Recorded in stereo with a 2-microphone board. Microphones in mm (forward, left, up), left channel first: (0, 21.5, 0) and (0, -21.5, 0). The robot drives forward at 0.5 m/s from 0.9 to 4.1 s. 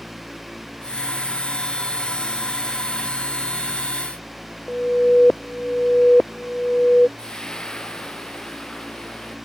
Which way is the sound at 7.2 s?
20° left (ahead or behind).